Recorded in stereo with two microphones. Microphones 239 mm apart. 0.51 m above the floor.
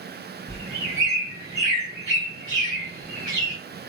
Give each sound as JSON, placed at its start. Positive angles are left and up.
{"t": 0.5, "sound": "a bird", "side_deg": -40, "distance_m": 2.5}